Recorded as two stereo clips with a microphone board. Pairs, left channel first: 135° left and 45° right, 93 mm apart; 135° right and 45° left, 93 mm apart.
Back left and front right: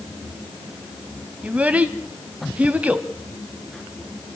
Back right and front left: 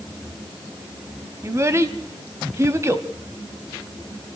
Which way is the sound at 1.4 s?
15° left.